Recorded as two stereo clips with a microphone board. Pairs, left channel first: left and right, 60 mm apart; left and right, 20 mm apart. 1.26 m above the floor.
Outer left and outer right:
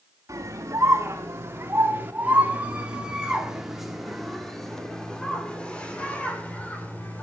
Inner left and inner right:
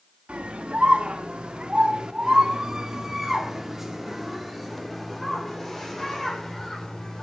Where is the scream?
60° right (ahead or behind), 3 m; by 7.2 s 25° left (ahead or behind), 4.5 m.